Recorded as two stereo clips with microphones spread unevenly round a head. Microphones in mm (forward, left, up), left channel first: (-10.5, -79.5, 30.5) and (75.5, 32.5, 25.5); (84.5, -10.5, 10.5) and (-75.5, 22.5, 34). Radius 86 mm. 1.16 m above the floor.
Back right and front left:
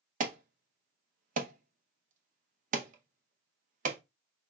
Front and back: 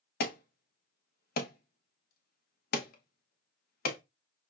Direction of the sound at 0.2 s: 20° left.